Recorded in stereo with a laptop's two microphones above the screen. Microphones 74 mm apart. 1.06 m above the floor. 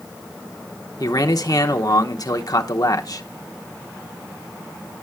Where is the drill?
I don't hear a drill.